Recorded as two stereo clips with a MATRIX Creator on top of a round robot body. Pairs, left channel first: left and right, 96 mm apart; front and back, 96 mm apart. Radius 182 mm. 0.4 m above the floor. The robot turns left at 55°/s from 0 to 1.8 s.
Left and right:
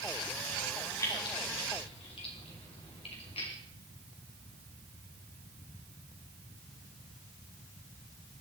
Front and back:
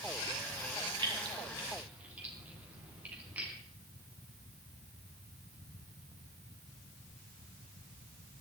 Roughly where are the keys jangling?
Behind left.